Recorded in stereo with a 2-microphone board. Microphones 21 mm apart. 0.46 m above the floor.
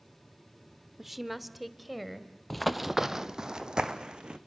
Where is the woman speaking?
10° right (ahead or behind), 0.9 m; by 2.4 s centre (ahead or behind), 2 m.